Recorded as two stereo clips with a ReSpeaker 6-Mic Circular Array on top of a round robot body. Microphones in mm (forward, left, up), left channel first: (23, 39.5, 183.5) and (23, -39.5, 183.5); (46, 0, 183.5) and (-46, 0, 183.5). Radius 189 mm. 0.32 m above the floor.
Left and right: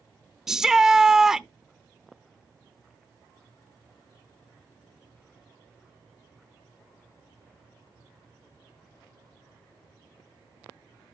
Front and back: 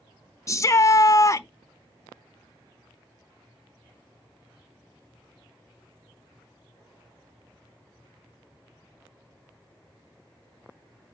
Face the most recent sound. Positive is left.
turn(degrees=-10)